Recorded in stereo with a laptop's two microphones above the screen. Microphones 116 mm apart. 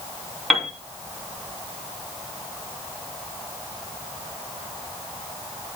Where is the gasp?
I don't hear a gasp.